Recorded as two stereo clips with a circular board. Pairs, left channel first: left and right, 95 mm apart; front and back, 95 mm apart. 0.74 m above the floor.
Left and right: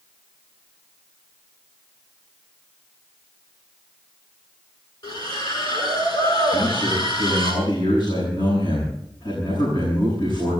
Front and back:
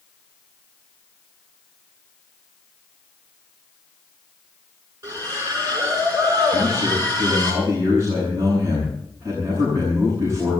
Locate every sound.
5.0 s a splash: 125° left, 9 m
6.5 s a man speaking: 120° left, 8.5 m